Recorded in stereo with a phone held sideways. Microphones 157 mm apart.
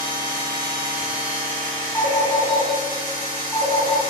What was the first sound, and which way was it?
A machine running, 30° right (ahead or behind).